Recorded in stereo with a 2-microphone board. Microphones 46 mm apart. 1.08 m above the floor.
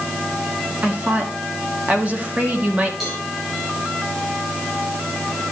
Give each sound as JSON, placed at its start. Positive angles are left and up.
{"t": 0.8, "sound": "a woman speaking", "side_deg": -35, "distance_m": 2.0}
{"t": 3.0, "sound": "a cowbell", "side_deg": -10, "distance_m": 6.0}